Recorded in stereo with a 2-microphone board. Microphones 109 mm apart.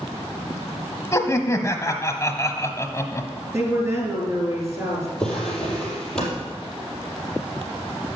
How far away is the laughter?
About 1.0 m.